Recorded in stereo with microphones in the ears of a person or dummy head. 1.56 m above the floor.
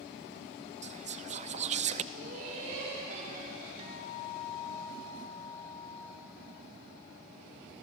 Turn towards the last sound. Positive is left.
turn(degrees=-40)  # may be behind; listen again after turning